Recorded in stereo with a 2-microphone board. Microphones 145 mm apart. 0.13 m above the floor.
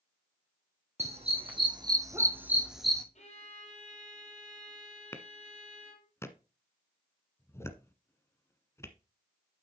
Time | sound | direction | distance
1.0 | a dog barking | 45° right (ahead or behind) | 2 m
3.1 | a violin | 55° left (ahead or behind) | 3.5 m
5.1 | a clap | 20° left (ahead or behind) | 1.1 m